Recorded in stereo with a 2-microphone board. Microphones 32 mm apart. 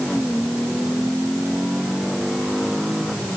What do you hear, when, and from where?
Only background noise.